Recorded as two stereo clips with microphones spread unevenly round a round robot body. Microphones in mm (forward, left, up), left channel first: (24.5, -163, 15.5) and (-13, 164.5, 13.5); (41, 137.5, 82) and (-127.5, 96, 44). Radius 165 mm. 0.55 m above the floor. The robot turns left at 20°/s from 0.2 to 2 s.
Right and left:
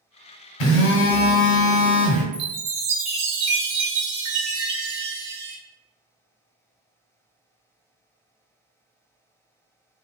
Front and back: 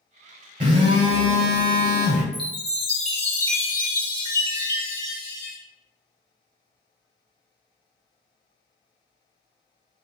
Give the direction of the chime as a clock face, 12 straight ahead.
9 o'clock.